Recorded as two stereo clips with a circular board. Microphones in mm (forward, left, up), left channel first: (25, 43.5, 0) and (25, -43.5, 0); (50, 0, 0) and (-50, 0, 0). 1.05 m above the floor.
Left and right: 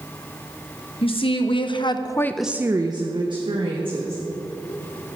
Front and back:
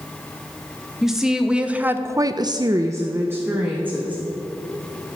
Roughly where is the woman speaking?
Left.